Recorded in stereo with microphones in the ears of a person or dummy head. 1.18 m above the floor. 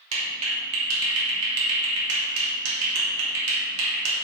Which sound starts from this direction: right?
A clap, at 0.1 s.